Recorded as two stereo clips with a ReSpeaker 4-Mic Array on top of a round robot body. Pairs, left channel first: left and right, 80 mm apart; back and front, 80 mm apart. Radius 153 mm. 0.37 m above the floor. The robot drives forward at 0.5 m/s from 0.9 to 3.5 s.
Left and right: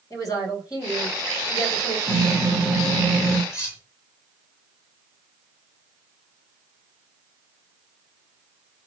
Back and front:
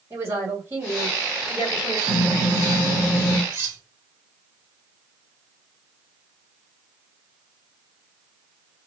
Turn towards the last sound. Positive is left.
turn(degrees=50)